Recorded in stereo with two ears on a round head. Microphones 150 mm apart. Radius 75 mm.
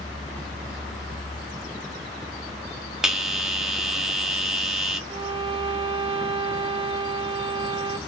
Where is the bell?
5° right (ahead or behind), 0.8 m.